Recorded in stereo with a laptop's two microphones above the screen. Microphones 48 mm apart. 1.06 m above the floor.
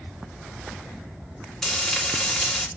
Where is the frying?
5° left (ahead or behind), 2.5 m.